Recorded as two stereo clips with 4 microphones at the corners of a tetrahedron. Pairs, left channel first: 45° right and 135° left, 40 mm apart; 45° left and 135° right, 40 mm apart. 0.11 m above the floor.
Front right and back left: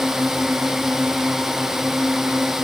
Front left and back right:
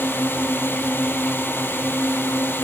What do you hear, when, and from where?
0.0 s a drone: 55° left